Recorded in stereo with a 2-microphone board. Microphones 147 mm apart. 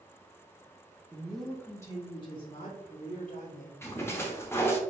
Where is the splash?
15° left (ahead or behind), 0.8 m.